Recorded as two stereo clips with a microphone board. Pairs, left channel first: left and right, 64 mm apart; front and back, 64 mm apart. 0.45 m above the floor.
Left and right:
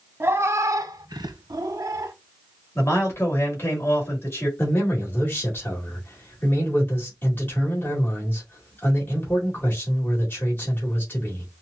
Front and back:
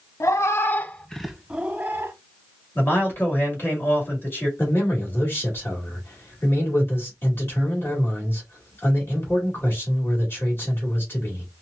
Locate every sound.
0.2 s a cat meowing: 35° right, 0.7 m; by 2.1 s 125° right, 0.7 m
2.8 s a man speaking: 50° left, 2.0 m
4.6 s a man speaking: 45° left, 2.0 m